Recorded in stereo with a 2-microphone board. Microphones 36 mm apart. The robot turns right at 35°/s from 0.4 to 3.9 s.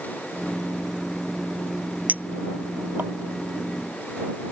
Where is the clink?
50° right (ahead or behind); by 3.1 s 65° right (ahead or behind).